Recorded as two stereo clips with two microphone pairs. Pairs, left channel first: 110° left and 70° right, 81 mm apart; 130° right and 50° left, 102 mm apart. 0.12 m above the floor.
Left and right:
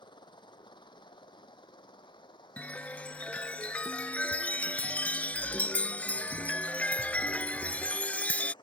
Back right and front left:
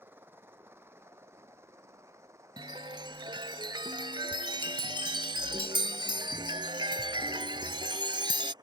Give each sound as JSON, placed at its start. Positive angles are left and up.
{"t": 0.0, "sound": "a helicopter", "azimuth_deg": 120}
{"t": 2.6, "sound": "a chime", "azimuth_deg": 45}